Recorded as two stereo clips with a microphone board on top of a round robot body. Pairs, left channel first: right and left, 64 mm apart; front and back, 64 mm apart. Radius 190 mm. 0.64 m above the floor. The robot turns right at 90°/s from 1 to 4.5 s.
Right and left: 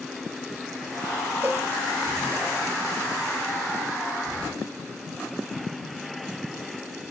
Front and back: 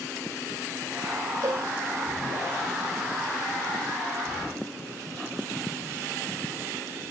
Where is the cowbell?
150° left, 1.0 m; by 1.7 s 175° left, 1.0 m.